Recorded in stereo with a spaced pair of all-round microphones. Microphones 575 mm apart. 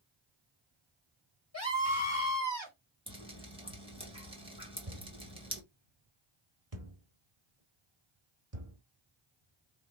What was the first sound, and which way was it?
A scream, 25° left (ahead or behind).